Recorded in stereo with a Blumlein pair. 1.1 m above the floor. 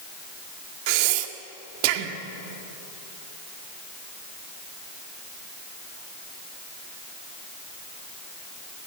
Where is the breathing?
45° right, 1.9 m.